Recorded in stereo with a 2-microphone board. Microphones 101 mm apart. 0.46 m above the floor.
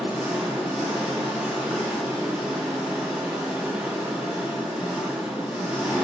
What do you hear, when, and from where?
0.0 s an engine running: 10° right (ahead or behind), 3 m